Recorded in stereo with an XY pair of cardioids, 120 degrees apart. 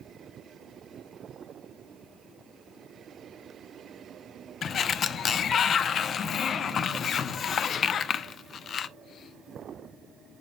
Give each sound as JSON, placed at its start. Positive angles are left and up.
{"t": 4.6, "sound": "a sliding door", "azimuth_deg": 45, "distance_m": 0.5}